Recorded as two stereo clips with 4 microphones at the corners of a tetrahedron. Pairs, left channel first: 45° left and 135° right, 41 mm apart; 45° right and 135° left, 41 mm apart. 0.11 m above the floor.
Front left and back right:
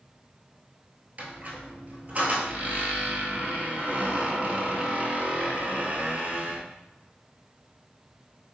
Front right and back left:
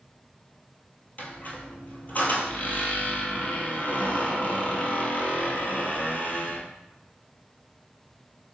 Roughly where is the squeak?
Right.